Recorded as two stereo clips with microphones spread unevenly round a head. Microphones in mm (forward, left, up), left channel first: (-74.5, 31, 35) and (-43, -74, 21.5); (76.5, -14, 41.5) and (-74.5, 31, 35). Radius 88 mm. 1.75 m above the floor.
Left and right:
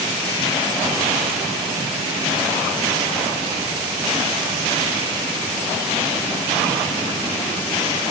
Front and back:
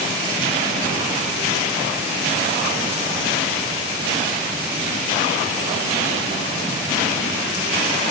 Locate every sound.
Only background noise.